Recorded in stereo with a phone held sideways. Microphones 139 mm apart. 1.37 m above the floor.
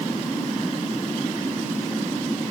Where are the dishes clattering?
I don't hear dishes clattering.